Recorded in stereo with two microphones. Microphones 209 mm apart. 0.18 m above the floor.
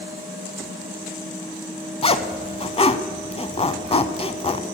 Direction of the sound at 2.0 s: 30° left (ahead or behind).